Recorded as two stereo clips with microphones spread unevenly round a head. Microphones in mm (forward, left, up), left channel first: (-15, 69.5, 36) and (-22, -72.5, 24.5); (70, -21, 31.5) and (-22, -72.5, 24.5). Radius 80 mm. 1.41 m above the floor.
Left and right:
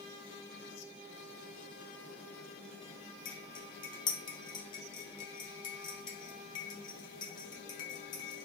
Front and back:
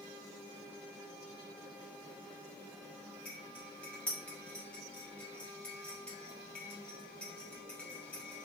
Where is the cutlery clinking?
95° left, 0.6 m.